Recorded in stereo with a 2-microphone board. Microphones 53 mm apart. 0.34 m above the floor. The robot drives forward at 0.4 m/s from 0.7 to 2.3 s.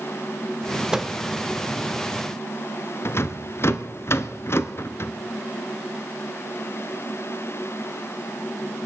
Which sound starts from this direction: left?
A rattle, at 3.0 s.